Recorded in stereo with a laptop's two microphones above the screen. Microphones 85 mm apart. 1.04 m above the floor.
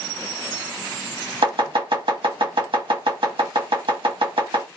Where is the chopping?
80° right, 1.3 m.